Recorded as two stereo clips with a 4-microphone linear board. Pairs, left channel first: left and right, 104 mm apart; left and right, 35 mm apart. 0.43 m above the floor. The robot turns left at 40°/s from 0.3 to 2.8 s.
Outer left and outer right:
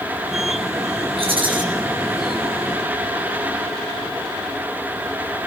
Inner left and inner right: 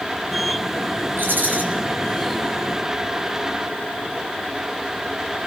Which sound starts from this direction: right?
A rattle, at 1.2 s.